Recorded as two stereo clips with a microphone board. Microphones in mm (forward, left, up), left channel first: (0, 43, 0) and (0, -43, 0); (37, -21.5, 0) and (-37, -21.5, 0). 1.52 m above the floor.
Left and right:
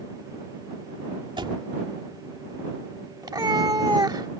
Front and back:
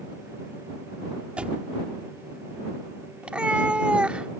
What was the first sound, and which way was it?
A door slam, 105° right.